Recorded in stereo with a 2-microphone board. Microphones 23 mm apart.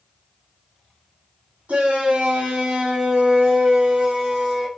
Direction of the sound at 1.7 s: 75° right (ahead or behind).